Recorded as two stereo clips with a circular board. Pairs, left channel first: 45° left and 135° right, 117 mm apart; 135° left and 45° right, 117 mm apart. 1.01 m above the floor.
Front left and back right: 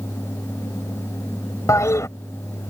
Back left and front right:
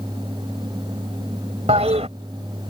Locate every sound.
1.7 s a toilet flushing: 20° right